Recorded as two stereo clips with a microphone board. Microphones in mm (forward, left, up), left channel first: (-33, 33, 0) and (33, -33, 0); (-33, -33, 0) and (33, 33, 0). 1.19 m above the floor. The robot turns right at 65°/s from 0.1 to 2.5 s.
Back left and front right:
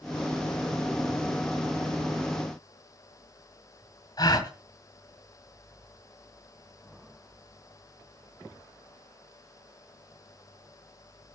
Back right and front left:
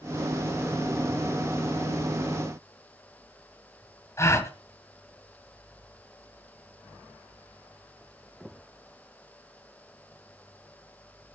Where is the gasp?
170° left, 1.7 m.